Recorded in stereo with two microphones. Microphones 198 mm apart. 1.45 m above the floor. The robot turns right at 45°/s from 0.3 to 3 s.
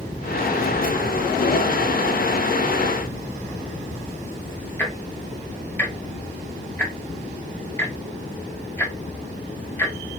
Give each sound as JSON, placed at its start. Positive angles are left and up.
{"t": 4.8, "sound": "ticking", "side_deg": 10, "distance_m": 0.7}